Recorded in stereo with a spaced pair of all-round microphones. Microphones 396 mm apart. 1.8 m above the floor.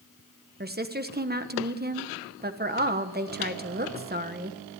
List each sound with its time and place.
0.6 s a woman speaking: 25° right (ahead or behind), 1.3 m